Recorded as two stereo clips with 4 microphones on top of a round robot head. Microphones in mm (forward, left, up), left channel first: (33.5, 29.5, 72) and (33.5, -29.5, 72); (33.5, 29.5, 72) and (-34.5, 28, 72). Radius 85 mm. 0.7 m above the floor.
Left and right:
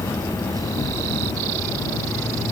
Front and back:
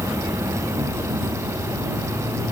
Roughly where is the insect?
Behind left.